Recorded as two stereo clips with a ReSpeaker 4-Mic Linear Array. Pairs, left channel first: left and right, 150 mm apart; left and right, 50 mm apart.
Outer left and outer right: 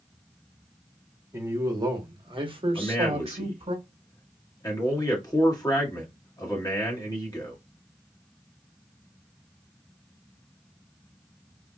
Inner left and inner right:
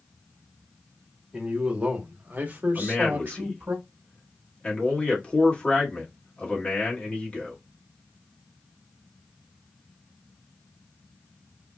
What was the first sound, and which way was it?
A man speaking, 20° right (ahead or behind).